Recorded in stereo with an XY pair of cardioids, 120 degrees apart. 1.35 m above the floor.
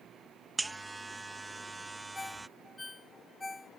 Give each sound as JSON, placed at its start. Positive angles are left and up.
{"t": 0.6, "sound": "a buzzer", "azimuth_deg": -15}
{"t": 2.1, "sound": "a ringtone", "azimuth_deg": 15}